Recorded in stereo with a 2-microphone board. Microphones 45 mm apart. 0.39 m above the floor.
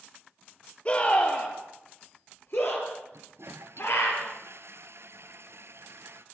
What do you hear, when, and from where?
0.8 s a scream: 30° left (ahead or behind), 7 m; by 4.1 s 65° left (ahead or behind), 7 m
3.1 s a toilet flushing: 70° right (ahead or behind), 1.1 m